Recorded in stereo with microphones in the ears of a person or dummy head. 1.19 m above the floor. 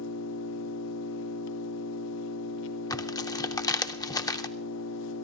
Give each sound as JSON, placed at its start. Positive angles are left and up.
{"t": 0.0, "sound": "an engine running", "side_deg": 70, "distance_m": 0.9}
{"t": 2.9, "sound": "tearing paper", "side_deg": 15, "distance_m": 0.5}